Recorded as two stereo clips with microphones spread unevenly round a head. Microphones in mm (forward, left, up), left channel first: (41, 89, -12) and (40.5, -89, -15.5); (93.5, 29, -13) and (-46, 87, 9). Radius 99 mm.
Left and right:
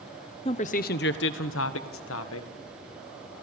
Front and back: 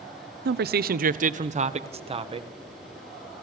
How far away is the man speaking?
About 0.9 m.